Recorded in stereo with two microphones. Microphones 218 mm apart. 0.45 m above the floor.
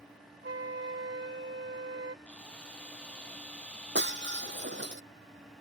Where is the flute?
55° right (ahead or behind).